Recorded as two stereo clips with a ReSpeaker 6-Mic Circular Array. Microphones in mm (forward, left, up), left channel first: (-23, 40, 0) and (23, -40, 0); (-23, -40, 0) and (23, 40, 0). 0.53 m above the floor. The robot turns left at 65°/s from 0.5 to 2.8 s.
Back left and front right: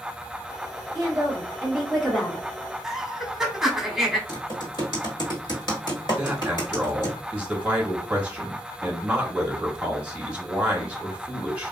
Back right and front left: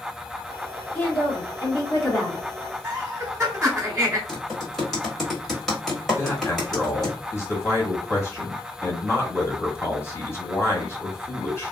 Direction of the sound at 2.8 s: 20° left.